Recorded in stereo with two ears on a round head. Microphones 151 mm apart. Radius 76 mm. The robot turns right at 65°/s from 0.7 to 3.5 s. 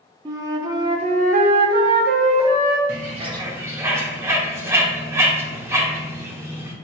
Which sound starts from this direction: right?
A bird, at 2.9 s.